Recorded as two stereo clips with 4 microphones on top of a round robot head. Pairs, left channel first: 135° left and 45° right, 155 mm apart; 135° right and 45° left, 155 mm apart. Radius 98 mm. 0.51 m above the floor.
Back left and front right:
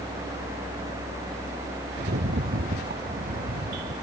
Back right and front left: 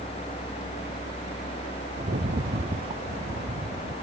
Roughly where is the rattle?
Ahead.